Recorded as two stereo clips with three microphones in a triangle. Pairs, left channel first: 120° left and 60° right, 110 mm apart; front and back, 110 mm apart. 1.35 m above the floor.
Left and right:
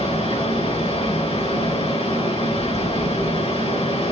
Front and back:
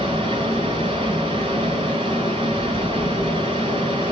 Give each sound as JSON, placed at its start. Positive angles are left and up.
{"t": 0.0, "sound": "running water", "azimuth_deg": 140, "distance_m": 3.0}